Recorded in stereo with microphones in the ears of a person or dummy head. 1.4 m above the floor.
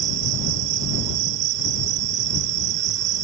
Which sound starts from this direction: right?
An insect, at 0.0 s.